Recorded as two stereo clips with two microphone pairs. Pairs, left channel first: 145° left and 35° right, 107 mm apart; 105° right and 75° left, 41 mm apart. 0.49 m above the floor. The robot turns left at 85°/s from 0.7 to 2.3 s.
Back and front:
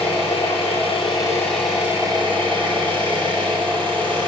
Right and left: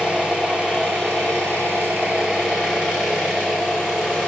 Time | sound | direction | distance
0.0 | an engine running | 135° left | 4 m